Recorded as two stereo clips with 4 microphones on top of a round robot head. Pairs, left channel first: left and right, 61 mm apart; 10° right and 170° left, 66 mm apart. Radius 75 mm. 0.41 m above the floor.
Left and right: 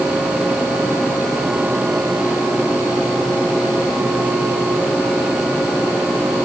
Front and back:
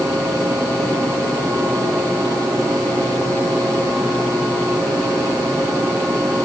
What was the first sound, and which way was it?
Only background noise.